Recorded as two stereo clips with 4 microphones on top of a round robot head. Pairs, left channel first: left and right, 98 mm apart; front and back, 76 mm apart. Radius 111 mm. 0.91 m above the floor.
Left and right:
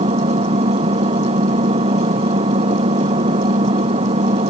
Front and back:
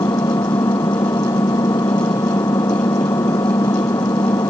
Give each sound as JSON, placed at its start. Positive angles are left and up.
{"t": 0.0, "sound": "an engine running", "azimuth_deg": -60}